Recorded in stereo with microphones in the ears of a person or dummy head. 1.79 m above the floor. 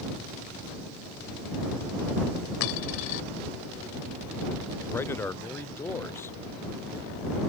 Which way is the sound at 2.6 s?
60° left (ahead or behind).